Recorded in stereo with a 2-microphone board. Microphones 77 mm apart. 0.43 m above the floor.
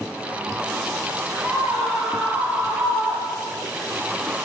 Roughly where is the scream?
Right.